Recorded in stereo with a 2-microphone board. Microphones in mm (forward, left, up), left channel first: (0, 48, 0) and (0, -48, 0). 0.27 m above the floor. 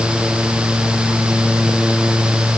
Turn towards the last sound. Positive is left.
No sound to turn to.